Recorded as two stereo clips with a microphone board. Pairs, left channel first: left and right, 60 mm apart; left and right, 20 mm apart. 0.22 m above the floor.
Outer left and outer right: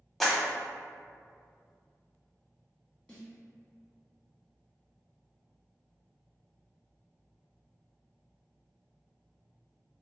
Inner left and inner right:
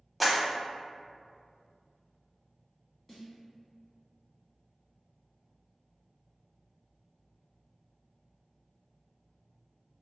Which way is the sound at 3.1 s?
20° left (ahead or behind).